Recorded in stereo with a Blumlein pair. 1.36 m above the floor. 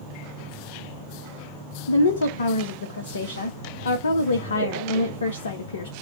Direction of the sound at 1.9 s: 70° left.